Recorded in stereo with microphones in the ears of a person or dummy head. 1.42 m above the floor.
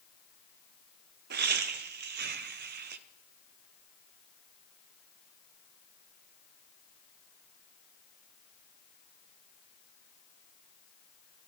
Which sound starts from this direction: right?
Laughter, at 1.3 s.